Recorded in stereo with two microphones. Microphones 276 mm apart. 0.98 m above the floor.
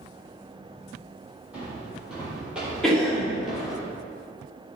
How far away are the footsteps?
About 1.8 m.